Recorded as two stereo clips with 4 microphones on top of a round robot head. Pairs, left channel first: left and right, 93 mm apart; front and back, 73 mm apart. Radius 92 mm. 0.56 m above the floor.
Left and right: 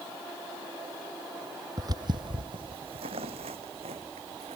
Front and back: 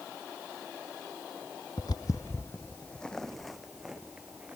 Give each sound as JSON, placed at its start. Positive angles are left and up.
{"t": 1.8, "sound": "footsteps", "azimuth_deg": -45}